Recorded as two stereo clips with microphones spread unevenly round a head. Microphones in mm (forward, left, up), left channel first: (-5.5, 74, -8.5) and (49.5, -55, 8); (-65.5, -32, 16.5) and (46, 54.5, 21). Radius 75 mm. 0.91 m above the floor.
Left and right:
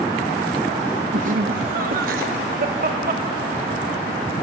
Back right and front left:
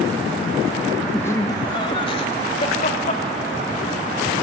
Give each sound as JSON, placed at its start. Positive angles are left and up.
{"t": 1.1, "sound": "laughter", "azimuth_deg": -70, "distance_m": 1.2}